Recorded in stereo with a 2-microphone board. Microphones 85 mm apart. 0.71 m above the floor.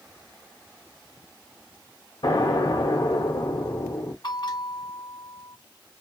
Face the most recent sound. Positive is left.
turn(degrees=60)  # may be behind; listen again after turning